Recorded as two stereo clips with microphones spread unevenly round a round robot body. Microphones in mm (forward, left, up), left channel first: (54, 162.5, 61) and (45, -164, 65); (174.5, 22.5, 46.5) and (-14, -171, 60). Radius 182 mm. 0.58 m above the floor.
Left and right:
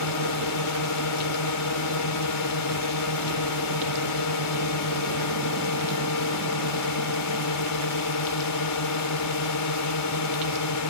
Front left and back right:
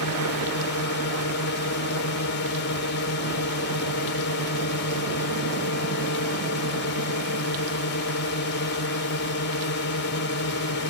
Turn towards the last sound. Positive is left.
turn(degrees=85)